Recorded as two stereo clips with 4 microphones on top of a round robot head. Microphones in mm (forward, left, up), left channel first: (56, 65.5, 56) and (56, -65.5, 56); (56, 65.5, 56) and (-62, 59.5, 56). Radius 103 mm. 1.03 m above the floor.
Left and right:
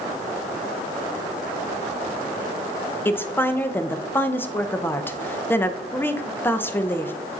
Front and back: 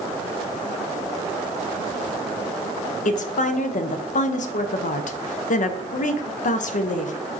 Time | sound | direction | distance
3.0 | a woman speaking | 15° left | 0.5 m